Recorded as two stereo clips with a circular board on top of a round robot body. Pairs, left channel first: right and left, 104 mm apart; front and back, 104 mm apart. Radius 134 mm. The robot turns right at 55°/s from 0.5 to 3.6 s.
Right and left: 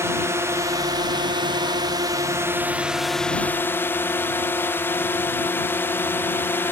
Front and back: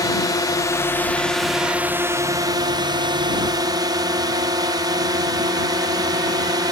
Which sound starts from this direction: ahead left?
A drone, at 0.0 s.